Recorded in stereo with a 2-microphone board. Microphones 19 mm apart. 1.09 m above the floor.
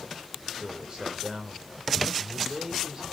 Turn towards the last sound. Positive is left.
turn(degrees=-45)  # may be behind; listen again after turning